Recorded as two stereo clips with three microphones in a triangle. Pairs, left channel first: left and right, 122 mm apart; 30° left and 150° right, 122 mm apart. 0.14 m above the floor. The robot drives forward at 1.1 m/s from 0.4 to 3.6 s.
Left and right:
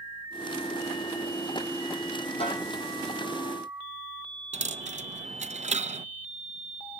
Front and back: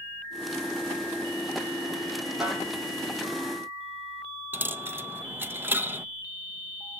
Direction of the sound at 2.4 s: 125° left.